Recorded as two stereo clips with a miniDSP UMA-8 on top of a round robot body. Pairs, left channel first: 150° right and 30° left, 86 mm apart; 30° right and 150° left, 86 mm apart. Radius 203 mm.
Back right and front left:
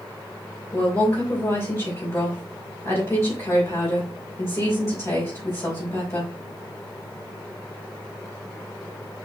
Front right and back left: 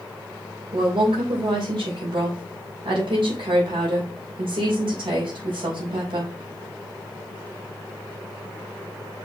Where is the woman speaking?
160° left, 3.5 m.